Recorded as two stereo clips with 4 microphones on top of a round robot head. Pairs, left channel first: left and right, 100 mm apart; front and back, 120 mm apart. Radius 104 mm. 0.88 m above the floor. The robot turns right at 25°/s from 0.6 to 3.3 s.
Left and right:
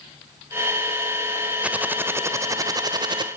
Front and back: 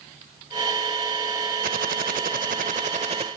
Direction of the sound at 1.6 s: 165° right.